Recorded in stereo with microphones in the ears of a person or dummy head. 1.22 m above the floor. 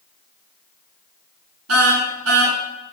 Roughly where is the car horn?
Right.